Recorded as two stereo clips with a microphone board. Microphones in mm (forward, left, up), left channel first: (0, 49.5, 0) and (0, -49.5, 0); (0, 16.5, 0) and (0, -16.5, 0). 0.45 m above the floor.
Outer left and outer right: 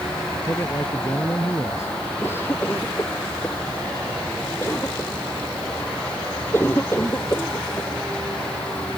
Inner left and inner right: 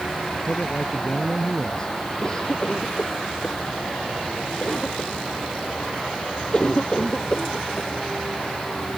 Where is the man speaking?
25° left (ahead or behind).